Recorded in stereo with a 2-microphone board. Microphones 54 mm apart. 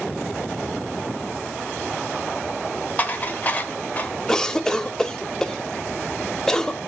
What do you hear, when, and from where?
3.0 s dishes clattering: 30° left (ahead or behind), 1.3 m
4.3 s a cough: 10° left (ahead or behind), 1.0 m